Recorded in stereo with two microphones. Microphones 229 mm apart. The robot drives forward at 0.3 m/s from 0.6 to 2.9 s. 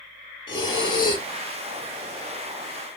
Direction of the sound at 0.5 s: 20° left (ahead or behind).